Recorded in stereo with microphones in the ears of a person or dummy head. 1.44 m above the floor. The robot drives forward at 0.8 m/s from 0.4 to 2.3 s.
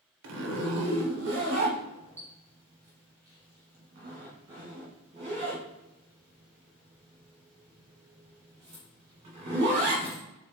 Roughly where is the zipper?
Right.